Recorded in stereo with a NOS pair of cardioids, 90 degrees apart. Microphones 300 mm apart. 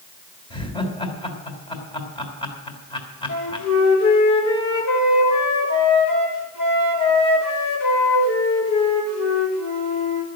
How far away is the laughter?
About 3.5 m.